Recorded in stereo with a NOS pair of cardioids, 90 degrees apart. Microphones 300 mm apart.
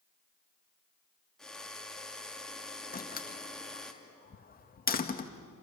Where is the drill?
Straight ahead, 3 m.